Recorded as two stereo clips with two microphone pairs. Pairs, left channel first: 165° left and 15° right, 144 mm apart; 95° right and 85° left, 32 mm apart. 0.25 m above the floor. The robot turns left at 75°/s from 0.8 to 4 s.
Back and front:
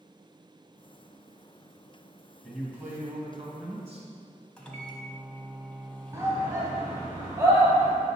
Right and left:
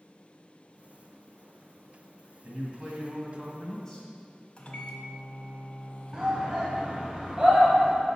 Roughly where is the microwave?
Behind right.